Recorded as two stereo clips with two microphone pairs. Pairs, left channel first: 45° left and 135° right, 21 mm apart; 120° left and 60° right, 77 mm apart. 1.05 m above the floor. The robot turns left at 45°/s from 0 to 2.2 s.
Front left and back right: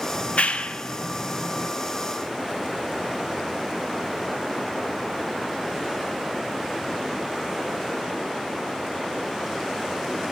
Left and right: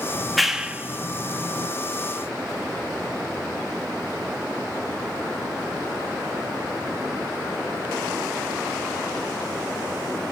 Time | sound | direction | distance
0.1 | a clap | 40° left | 0.9 m